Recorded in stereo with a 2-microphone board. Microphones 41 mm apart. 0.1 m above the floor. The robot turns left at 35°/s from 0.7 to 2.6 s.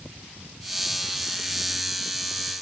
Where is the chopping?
No chopping in this recording.